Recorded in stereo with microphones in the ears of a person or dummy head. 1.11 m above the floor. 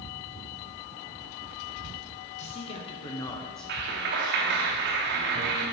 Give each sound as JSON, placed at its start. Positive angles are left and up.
{"t": 2.4, "sound": "a man speaking", "side_deg": 40, "distance_m": 1.0}
{"t": 3.7, "sound": "a clap", "side_deg": -55, "distance_m": 0.9}